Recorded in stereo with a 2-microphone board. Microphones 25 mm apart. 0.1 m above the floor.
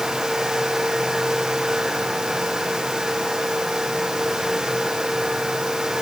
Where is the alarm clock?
No alarm clock in this recording.